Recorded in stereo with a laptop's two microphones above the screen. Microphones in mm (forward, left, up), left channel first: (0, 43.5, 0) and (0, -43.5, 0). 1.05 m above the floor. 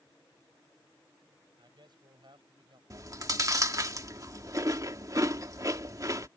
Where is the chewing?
45° right (ahead or behind).